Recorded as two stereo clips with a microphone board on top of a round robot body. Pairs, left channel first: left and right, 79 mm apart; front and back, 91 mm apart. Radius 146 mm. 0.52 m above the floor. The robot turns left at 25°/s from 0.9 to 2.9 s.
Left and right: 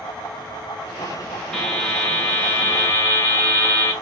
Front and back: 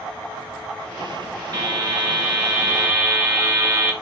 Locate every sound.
1.5 s a buzzer: 170° left, 1.6 m; by 3.9 s 135° left, 1.6 m